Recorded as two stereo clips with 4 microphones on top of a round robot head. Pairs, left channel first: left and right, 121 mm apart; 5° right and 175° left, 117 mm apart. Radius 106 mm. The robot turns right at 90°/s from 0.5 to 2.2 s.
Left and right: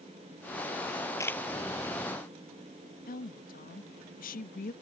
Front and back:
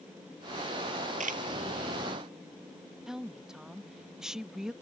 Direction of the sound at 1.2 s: 155° left.